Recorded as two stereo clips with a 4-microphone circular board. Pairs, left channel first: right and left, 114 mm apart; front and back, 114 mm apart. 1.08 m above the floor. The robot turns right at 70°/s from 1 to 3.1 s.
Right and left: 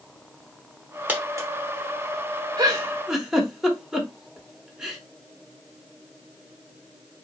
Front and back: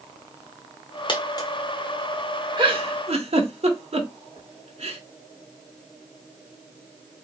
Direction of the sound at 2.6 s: 140° left.